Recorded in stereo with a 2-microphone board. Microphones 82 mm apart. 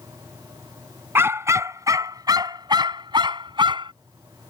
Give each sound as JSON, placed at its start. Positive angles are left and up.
{"t": 1.1, "sound": "a dog barking", "side_deg": -30}